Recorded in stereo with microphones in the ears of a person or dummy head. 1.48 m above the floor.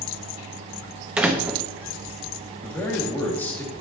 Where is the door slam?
5° right (ahead or behind), 1.0 m.